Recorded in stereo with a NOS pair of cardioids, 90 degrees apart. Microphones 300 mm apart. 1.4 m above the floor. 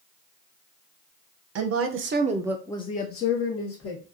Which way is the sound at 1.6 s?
65° right.